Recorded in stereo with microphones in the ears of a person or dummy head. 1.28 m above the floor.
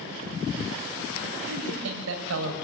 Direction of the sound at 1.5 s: 85° right.